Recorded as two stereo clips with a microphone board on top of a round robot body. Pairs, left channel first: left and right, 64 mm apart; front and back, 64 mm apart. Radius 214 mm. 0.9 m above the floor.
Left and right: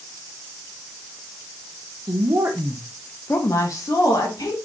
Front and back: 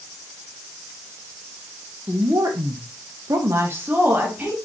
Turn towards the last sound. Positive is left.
turn(degrees=110)